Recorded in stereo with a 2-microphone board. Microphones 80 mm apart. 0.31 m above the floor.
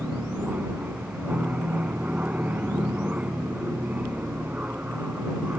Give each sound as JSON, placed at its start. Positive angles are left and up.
{"t": 0.0, "sound": "an aircraft", "side_deg": -15}